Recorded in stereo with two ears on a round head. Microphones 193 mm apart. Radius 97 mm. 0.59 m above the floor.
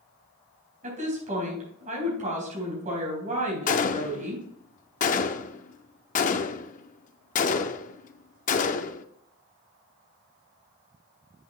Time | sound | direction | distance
0.8 | a woman speaking | 35° right (ahead or behind) | 4 m
3.7 | a gunshot | 35° left (ahead or behind) | 0.5 m